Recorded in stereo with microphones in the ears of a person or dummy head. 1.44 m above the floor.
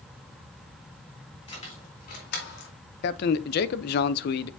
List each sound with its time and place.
1.5 s keys jangling: 35° left (ahead or behind), 2.5 m; by 2.7 s 75° left (ahead or behind), 2.5 m
3.0 s a man speaking: 65° left (ahead or behind), 0.6 m